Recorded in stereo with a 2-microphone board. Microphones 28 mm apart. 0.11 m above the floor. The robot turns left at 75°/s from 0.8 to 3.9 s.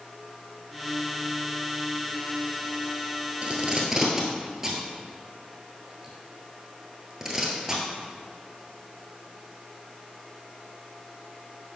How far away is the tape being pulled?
About 1.1 m.